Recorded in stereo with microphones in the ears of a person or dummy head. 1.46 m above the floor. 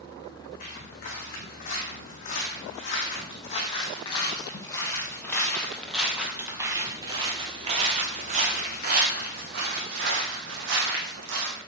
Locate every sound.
0.6 s footsteps: 50° left (ahead or behind), 5 m; by 11.6 s 70° right (ahead or behind), 4 m